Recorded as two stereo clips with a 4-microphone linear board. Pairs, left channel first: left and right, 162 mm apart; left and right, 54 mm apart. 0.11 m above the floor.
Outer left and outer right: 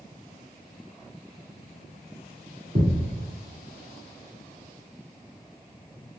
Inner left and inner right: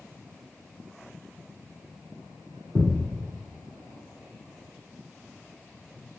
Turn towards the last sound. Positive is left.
turn(degrees=-55)  # may be behind; listen again after turning